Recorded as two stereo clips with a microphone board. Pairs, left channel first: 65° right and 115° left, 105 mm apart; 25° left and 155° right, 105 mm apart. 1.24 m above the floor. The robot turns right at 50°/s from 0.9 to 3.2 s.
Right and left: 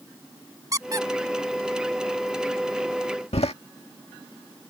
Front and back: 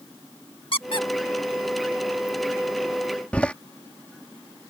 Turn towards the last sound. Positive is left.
turn(degrees=-55)